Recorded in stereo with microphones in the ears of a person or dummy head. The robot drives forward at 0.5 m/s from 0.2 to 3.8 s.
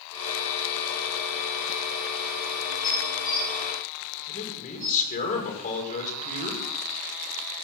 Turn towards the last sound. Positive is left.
turn(degrees=45)  # may be behind; listen again after turning